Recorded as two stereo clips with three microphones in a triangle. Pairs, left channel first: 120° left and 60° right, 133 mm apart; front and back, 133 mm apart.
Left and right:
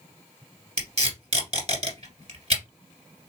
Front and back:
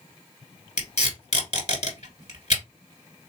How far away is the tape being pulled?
About 1.7 m.